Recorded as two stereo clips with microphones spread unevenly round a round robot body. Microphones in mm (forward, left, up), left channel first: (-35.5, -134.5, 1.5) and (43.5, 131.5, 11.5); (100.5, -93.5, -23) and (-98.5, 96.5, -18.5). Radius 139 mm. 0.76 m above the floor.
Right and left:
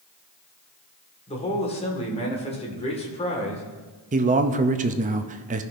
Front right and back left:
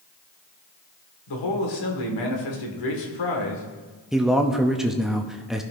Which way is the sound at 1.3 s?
40° right.